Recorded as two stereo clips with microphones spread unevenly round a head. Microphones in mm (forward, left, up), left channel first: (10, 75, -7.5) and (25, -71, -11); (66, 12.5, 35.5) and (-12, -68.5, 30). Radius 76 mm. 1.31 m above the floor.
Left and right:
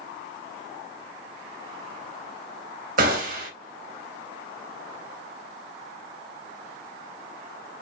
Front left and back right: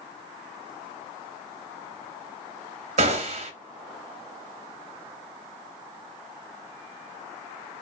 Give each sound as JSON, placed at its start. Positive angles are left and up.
{"t": 3.0, "sound": "a gunshot", "azimuth_deg": -110, "distance_m": 1.1}